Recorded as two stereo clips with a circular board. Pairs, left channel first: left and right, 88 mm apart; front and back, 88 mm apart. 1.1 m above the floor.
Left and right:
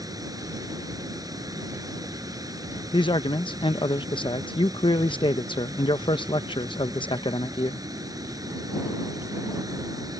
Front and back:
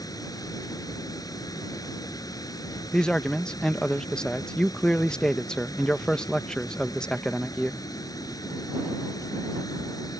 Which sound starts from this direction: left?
A man speaking, at 2.9 s.